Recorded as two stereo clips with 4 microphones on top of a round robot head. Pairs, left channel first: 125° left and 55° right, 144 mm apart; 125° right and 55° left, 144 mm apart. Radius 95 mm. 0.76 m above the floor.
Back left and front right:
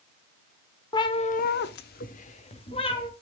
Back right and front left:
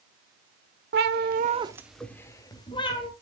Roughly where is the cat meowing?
Ahead left.